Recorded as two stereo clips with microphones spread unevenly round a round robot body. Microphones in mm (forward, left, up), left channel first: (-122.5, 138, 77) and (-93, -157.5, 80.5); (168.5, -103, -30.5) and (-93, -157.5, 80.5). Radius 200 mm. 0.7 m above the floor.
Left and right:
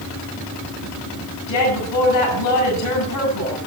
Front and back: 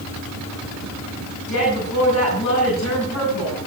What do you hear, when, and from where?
1.5 s a woman speaking: 60° left, 7.5 m